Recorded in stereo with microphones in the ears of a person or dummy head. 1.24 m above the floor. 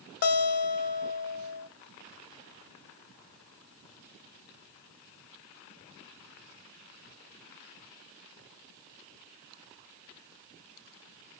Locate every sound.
0.2 s a guitar: 55° left (ahead or behind), 0.8 m